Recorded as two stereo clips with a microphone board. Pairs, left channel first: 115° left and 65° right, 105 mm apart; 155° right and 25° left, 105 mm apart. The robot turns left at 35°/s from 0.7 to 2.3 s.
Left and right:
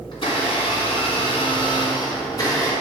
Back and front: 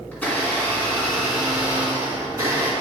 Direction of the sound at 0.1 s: 130° left.